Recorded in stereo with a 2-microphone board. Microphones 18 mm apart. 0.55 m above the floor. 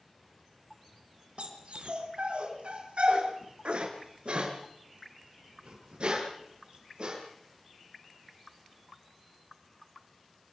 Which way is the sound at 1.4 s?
70° right (ahead or behind).